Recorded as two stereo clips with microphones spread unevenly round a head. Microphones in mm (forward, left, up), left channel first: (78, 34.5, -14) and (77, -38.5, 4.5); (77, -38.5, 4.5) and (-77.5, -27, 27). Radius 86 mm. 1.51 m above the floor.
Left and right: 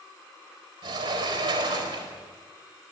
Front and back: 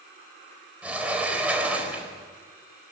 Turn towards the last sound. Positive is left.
turn(degrees=-105)